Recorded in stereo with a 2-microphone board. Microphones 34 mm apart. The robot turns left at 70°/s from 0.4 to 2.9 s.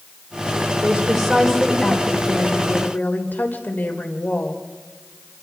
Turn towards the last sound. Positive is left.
turn(degrees=65)